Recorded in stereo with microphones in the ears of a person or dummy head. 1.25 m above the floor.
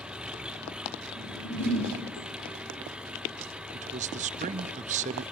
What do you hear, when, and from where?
0.0 s an engine running: 5° right (ahead or behind), 0.8 m
1.1 s a whoosh: 85° left, 9.5 m
3.7 s a man speaking: 35° right (ahead or behind), 0.7 m